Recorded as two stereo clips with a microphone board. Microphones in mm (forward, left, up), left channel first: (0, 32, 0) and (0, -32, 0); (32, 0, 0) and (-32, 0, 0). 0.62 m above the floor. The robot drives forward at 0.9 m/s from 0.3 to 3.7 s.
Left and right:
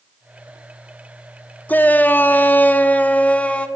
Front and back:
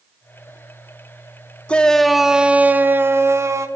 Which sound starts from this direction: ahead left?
A shout, at 1.7 s.